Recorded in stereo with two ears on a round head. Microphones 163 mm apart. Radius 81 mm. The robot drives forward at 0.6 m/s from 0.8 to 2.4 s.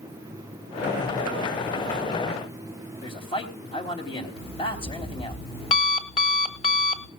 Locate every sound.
3.0 s a man speaking: 30° left (ahead or behind), 4 m
4.4 s an alarm clock: 30° left (ahead or behind), 1.5 m